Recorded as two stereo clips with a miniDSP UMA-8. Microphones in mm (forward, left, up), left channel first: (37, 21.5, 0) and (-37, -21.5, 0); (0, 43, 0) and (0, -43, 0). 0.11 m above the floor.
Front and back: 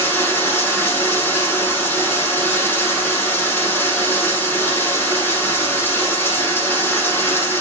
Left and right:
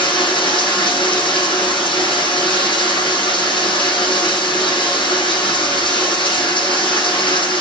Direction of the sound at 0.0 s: 90° left.